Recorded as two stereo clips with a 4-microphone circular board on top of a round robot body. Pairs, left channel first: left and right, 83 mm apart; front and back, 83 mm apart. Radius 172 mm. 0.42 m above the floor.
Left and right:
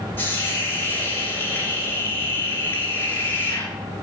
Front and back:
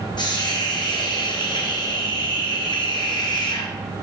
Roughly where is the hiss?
Ahead left.